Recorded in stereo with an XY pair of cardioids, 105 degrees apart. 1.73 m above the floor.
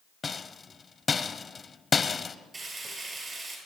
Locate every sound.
0.2 s a rattle: 30° left, 0.9 m
2.5 s frying: 30° right, 8 m